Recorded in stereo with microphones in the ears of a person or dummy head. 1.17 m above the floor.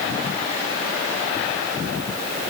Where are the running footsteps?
I don't hear running footsteps.